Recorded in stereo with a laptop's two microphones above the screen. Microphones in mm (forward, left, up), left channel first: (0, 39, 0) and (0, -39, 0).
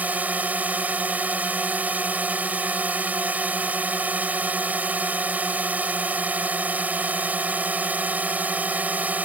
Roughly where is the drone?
Right.